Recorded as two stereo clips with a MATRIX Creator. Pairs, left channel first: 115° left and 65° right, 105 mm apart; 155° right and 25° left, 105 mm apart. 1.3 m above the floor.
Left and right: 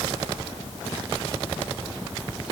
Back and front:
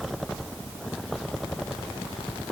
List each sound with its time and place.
Only background noise.